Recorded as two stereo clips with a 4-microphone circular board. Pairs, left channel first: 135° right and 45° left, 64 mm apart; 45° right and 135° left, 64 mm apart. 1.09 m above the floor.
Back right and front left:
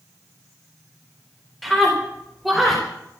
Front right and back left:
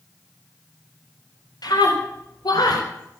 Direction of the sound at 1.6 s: 50° right.